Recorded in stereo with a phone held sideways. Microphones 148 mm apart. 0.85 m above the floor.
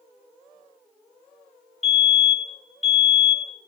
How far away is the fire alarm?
About 2 m.